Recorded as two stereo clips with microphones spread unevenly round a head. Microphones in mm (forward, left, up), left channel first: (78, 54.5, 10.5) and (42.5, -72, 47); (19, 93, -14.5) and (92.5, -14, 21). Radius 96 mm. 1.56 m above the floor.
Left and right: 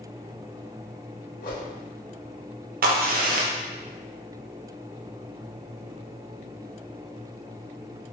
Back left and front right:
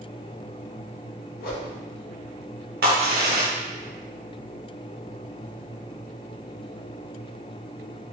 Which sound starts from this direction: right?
A crack, at 2.8 s.